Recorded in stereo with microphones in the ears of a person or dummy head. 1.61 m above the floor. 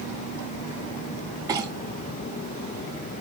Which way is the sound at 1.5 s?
15° right (ahead or behind).